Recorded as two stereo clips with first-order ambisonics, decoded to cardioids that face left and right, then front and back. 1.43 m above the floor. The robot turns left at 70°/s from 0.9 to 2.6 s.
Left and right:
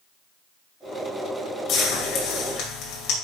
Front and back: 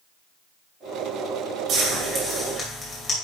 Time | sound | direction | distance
1.7 | frying | 130° left | 2.5 m